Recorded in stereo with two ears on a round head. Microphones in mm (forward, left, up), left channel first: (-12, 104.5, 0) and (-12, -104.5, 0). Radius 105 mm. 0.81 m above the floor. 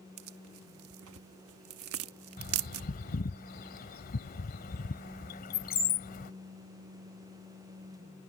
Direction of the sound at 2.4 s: 40° left (ahead or behind).